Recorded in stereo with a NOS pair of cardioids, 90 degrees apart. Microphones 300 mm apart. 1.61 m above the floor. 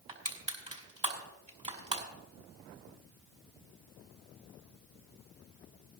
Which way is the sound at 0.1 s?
20° right.